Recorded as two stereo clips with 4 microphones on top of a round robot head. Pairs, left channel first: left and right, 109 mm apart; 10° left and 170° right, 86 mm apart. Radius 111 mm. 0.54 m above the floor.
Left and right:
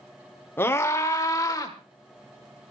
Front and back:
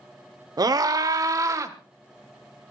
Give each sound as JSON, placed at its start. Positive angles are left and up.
{"t": 0.6, "sound": "a scream", "azimuth_deg": 160, "distance_m": 2.0}